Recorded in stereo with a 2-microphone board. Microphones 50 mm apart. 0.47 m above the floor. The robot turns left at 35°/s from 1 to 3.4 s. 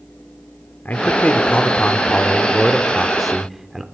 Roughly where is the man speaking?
Left.